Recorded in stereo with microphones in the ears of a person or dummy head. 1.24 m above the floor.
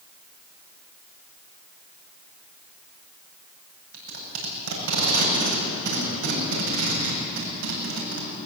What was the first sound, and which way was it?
Tape being pulled, 75° right (ahead or behind).